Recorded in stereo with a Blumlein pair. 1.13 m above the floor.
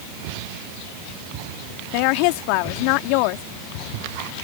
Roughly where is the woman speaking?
Ahead left.